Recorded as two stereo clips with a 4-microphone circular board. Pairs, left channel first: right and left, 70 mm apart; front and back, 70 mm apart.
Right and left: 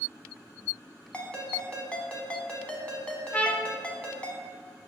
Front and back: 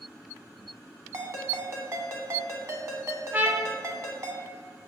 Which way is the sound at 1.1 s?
160° right.